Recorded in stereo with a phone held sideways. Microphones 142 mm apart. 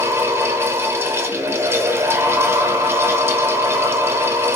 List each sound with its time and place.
0.0 s a fan: 15° right (ahead or behind), 0.8 m